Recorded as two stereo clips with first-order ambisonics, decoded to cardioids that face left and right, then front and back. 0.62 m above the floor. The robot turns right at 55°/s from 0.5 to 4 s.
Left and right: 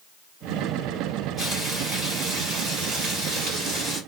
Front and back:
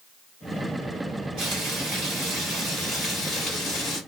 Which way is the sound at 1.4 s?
175° right.